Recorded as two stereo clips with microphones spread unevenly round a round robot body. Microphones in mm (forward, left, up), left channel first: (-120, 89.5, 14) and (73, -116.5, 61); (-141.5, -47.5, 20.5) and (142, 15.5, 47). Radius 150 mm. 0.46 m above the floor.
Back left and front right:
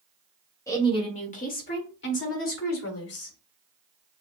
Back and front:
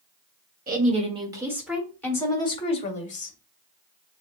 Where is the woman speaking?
70° left, 1.4 m; by 3.4 s 135° left, 2 m.